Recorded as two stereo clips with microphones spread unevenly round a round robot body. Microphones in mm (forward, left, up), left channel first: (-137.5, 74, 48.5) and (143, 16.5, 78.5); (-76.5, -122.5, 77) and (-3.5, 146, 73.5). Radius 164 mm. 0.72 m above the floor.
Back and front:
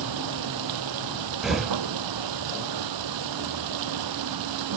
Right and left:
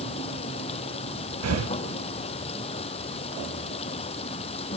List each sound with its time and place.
0.0 s running water: 35° right
1.4 s breathing: 80° left